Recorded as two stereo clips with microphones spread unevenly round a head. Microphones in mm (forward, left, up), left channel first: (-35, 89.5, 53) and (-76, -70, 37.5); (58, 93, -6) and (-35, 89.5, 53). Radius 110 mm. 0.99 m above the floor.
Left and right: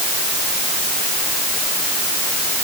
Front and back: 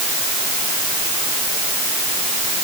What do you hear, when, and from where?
Only background noise.